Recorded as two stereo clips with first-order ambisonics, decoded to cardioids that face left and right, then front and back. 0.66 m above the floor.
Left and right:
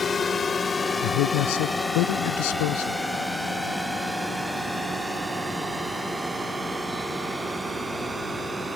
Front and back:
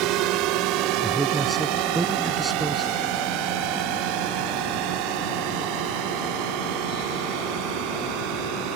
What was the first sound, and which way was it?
A drone, 160° left.